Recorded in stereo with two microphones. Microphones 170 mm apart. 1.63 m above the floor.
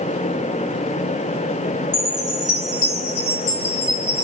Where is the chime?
20° left (ahead or behind), 2 m.